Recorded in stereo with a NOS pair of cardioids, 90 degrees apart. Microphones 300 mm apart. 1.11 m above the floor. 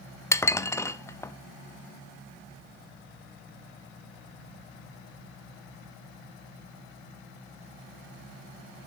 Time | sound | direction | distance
0.3 | dishes clattering | 10° left | 0.8 m